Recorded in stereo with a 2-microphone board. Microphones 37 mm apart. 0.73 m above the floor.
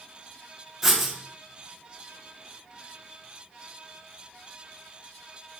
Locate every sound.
0.8 s writing: 10° right (ahead or behind), 0.6 m